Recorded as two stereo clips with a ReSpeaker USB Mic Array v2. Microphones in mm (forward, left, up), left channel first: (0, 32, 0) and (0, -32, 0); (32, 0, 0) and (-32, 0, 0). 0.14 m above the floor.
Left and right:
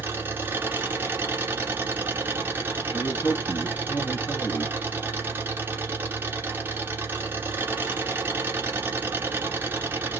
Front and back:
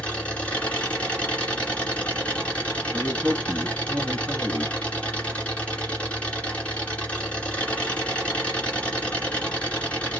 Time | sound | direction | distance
0.0 | an engine running | 60° right | 1.7 m
2.9 | a man speaking | 110° left | 1.4 m